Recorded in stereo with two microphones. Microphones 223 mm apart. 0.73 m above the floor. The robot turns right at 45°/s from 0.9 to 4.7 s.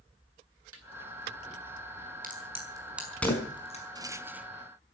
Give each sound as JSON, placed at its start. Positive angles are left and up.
{"t": 0.7, "sound": "a snare drum", "side_deg": -80, "distance_m": 4.0}
{"t": 2.2, "sound": "a crack", "side_deg": -40, "distance_m": 5.5}
{"t": 4.0, "sound": "a rattle", "side_deg": -15, "distance_m": 1.1}